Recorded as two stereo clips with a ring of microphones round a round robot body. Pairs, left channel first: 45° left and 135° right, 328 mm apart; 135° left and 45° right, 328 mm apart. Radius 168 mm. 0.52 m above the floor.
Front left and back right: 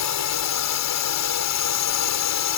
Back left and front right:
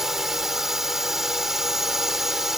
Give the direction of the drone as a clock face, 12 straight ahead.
11 o'clock.